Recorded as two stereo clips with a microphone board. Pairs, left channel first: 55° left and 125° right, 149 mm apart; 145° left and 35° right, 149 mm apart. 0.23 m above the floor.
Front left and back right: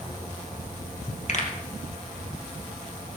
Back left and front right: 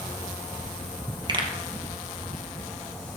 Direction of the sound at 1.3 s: 25° left.